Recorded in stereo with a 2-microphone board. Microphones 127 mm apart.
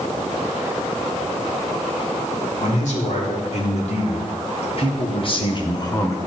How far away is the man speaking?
About 2.5 m.